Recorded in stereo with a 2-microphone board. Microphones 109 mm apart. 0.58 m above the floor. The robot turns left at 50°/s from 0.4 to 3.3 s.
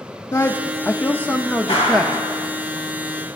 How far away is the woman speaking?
About 0.6 m.